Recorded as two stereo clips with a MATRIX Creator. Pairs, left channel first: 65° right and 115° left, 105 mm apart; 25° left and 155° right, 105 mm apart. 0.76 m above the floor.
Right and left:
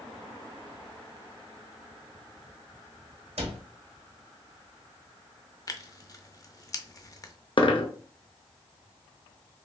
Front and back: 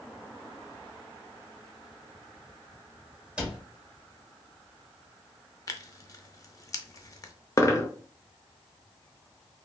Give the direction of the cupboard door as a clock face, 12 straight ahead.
8 o'clock.